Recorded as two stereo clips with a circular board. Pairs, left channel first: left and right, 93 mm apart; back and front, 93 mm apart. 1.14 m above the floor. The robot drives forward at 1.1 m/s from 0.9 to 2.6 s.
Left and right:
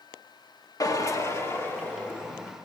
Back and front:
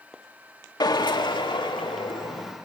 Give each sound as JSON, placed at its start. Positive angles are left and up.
{"t": 0.8, "sound": "a drill", "azimuth_deg": 140, "distance_m": 1.5}